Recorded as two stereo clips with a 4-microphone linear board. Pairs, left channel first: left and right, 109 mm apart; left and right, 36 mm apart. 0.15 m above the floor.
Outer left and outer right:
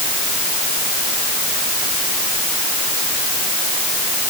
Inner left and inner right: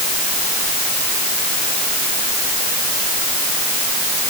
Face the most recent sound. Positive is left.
No sound to turn to.